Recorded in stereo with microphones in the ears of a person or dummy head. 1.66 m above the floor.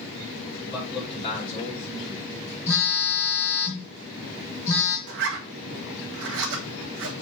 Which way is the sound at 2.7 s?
15° left (ahead or behind).